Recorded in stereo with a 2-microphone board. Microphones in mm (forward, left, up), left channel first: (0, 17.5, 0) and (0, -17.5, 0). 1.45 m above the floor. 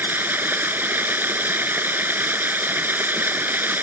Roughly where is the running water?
Right.